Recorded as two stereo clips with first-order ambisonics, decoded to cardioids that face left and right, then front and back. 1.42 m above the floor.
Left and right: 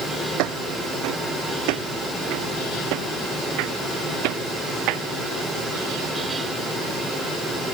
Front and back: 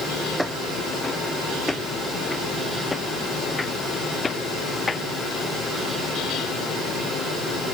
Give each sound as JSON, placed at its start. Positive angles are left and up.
{"t": 0.4, "sound": "footsteps", "azimuth_deg": -90}